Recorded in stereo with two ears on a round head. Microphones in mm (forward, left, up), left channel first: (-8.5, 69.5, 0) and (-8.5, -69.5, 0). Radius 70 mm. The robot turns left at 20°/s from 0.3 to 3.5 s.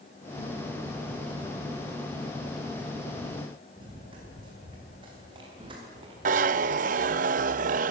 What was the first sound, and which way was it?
Running footsteps, 30° right (ahead or behind).